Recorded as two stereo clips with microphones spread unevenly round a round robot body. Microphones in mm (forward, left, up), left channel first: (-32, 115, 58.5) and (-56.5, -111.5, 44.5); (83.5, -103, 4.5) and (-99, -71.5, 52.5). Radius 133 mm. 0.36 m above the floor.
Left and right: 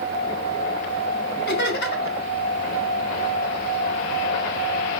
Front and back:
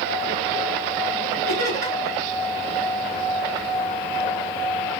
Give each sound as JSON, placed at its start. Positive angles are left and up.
{"t": 1.5, "sound": "laughter", "azimuth_deg": 120, "distance_m": 2.5}